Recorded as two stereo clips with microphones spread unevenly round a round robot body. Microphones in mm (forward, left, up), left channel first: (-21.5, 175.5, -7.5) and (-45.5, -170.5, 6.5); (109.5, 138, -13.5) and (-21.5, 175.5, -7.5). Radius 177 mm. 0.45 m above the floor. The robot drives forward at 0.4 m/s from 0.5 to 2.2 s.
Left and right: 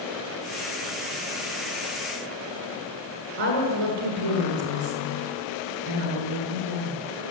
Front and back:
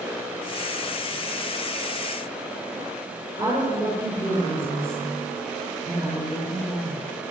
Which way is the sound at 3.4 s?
95° right.